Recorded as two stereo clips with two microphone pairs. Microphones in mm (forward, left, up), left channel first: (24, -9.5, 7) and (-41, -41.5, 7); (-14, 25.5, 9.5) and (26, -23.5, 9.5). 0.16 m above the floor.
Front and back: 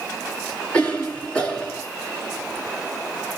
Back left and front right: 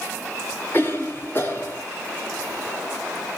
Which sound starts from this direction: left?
A cough, at 0.7 s.